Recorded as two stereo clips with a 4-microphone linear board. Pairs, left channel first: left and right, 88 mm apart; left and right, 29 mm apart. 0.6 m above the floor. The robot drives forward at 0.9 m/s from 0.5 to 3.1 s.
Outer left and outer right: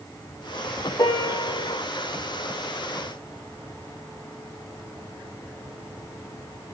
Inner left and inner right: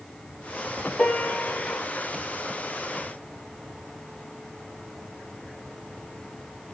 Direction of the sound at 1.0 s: 45° left (ahead or behind).